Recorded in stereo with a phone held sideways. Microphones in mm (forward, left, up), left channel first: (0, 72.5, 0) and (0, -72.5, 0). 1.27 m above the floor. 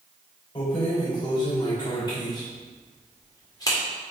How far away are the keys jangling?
About 5 m.